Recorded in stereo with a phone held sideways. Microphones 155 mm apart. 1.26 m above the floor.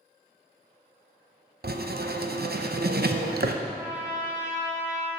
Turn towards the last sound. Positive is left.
turn(degrees=-10)  # may be behind; listen again after turning